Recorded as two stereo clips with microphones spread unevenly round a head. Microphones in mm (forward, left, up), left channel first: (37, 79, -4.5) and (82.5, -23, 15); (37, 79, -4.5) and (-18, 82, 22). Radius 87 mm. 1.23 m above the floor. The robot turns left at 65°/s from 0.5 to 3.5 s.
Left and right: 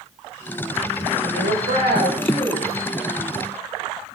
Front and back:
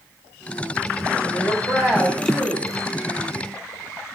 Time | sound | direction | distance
1.2 | a woman speaking | 50° right | 5.5 m